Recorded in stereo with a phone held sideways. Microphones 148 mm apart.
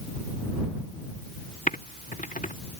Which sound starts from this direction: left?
Typing on a keyboard, at 1.7 s.